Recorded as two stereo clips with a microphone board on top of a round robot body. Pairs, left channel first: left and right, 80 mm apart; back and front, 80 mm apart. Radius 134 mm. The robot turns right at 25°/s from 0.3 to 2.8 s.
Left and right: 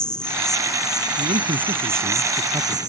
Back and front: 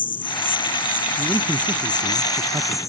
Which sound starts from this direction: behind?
An insect, at 0.0 s.